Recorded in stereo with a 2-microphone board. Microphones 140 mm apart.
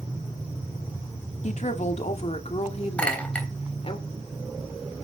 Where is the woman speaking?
55° left (ahead or behind), 1.7 m; by 4.0 s 45° left (ahead or behind), 3 m.